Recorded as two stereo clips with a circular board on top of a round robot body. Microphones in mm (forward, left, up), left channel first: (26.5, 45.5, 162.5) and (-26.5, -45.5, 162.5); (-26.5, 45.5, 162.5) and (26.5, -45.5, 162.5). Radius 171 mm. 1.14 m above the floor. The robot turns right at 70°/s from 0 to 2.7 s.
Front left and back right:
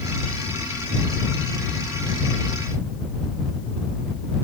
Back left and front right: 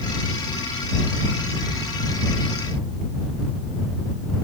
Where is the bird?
No bird in this recording.